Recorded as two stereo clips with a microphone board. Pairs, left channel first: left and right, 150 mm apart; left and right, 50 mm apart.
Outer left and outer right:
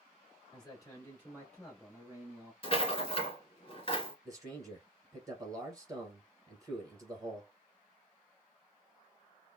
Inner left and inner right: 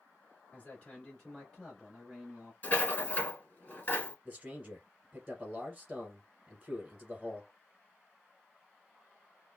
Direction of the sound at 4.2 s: 20° right (ahead or behind).